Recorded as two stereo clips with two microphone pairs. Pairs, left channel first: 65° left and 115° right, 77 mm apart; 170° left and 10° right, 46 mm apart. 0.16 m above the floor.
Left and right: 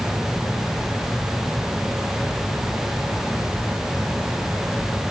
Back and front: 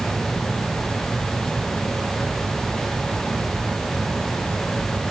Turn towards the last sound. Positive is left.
No sound to turn to.